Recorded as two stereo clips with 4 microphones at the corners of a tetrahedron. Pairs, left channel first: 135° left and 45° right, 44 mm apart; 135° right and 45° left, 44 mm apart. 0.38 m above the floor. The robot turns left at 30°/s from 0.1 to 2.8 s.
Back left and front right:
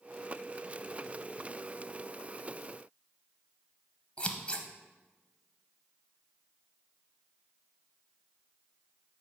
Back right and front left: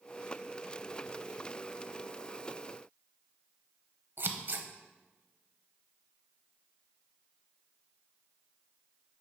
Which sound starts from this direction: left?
Scissors, at 4.2 s.